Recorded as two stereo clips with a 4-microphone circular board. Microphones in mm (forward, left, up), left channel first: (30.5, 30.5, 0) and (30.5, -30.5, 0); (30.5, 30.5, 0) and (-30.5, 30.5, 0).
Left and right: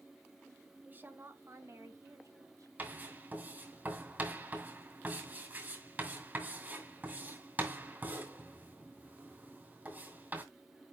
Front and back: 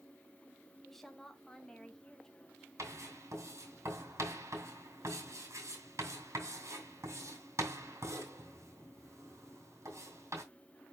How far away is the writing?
About 2.5 m.